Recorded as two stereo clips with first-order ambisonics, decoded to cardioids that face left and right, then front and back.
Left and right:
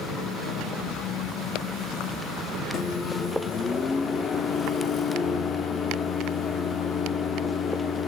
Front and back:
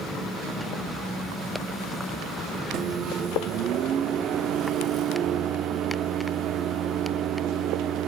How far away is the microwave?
About 0.7 m.